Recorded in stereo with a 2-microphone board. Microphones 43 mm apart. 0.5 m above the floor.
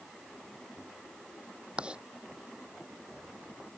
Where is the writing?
25° right (ahead or behind).